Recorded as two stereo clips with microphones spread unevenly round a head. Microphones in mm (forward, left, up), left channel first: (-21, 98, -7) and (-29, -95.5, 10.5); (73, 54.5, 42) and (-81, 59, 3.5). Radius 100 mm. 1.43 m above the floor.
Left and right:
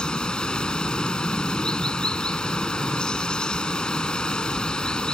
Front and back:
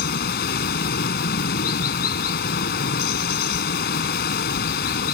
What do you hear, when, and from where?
0.0 s running water: straight ahead